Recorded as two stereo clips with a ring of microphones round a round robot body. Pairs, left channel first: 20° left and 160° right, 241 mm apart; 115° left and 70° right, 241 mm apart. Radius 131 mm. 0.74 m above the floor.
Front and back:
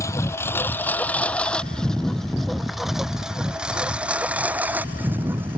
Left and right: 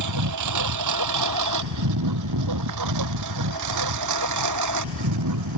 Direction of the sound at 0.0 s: 55° right.